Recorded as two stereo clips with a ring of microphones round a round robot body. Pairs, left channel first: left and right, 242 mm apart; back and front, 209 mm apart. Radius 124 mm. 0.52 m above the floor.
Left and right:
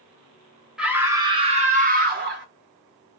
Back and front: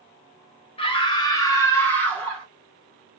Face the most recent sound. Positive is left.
turn(degrees=-95)